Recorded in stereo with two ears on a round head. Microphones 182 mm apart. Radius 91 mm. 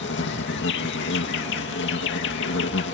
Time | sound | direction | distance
0.0 | an insect | 60° left (ahead or behind) | ?